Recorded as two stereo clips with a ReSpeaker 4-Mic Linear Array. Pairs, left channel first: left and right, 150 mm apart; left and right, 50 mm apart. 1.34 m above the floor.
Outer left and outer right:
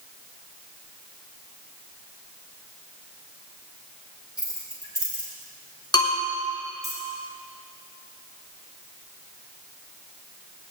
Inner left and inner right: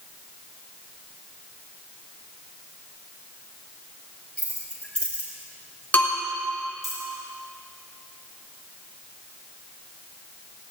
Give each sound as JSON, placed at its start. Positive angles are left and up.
{"t": 4.4, "sound": "keys jangling", "side_deg": 25, "distance_m": 5.5}
{"t": 5.9, "sound": "a bell", "side_deg": 30, "distance_m": 3.5}